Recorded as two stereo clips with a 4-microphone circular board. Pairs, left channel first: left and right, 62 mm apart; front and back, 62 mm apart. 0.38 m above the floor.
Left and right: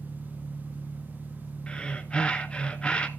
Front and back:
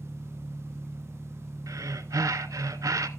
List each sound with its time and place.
0.0 s an engine running: 90° left, 1.4 m
1.7 s breathing: 160° left, 0.7 m